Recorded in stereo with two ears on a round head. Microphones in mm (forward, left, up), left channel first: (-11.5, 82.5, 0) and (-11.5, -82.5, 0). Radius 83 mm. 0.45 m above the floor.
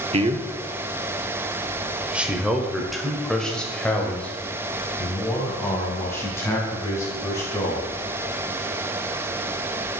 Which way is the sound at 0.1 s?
35° right (ahead or behind).